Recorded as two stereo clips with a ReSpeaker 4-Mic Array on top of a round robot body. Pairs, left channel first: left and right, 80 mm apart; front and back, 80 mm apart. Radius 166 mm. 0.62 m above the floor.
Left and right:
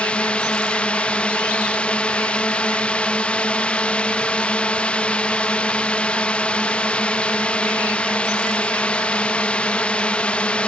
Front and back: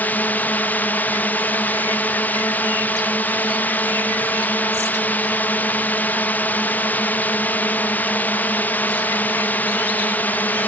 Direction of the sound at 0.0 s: 35° left.